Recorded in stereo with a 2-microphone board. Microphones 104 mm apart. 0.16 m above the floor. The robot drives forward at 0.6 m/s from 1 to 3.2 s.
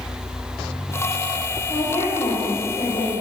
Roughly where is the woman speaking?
Left.